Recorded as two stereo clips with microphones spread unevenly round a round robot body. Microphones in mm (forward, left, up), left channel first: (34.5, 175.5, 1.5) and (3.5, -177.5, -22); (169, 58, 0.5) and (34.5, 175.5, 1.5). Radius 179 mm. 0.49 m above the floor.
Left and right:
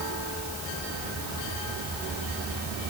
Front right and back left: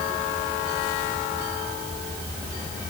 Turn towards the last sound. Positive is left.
No sound to turn to.